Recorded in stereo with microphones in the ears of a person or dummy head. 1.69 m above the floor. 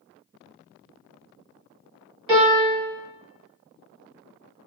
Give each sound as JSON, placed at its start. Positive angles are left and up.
{"t": 2.3, "sound": "a piano", "side_deg": -30, "distance_m": 1.4}